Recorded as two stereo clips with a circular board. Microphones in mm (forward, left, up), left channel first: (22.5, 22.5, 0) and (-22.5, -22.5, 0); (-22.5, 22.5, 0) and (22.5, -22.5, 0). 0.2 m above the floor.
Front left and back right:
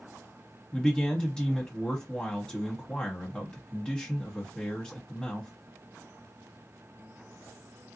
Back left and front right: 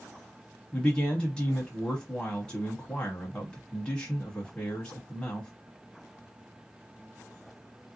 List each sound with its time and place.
0.7 s a man speaking: 90° left, 1.0 m